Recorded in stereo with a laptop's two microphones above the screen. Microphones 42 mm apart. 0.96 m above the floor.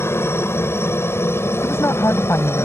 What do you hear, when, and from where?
0.0 s a helicopter: 70° left (ahead or behind); by 2.7 s 75° left (ahead or behind)
1.6 s a woman speaking: 80° left